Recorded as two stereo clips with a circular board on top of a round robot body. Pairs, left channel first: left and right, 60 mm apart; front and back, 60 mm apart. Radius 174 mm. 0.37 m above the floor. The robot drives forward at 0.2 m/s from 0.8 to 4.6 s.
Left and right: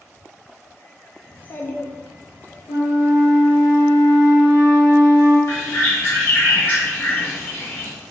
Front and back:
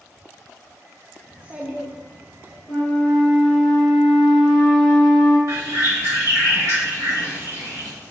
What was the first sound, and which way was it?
A child speaking, 115° left.